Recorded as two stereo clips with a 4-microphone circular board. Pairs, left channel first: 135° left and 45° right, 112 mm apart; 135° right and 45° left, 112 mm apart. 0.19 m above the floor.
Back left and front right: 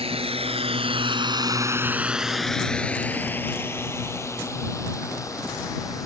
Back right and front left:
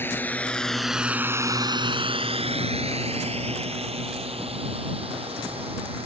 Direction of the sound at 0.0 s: 65° right.